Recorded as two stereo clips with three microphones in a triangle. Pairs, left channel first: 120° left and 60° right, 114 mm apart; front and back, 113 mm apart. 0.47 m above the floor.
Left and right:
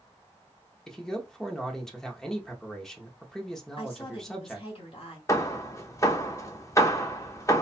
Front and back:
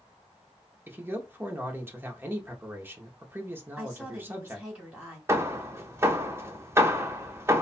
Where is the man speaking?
160° right, 0.8 m.